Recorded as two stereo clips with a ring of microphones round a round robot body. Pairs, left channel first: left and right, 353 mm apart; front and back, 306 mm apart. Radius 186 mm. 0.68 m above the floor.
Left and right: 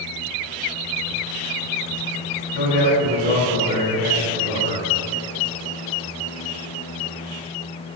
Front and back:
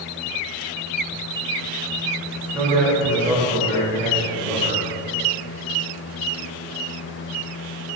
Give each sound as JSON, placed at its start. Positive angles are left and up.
{"t": 2.5, "sound": "a man speaking", "azimuth_deg": 110, "distance_m": 2.5}